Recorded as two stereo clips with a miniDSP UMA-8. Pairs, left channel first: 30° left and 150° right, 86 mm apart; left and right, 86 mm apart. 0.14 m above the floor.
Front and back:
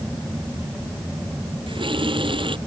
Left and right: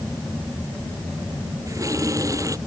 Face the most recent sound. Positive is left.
turn(degrees=-140)